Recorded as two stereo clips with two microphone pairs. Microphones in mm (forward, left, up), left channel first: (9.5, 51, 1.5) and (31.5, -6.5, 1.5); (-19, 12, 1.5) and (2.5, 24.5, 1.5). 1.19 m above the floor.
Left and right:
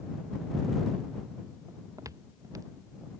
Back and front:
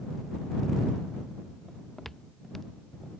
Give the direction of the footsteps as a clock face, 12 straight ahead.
2 o'clock.